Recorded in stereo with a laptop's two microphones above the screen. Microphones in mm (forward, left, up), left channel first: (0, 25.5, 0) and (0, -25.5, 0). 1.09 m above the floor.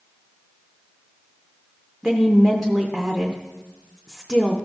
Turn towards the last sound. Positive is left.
turn(degrees=5)  # may be behind; listen again after turning